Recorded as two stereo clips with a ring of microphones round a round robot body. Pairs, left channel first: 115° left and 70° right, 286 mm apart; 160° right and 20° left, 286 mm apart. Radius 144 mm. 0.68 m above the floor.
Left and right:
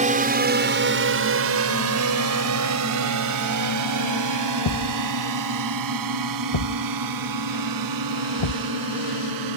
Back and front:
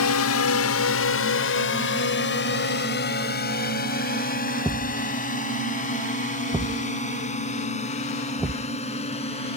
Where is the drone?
130° right; by 9.6 s 85° right.